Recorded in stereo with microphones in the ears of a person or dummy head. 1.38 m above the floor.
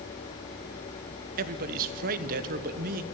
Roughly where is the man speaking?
Right.